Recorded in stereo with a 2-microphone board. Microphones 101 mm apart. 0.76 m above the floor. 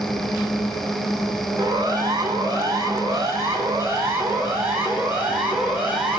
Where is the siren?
40° right (ahead or behind), 8.5 m; by 6.2 s 10° right (ahead or behind), 8 m.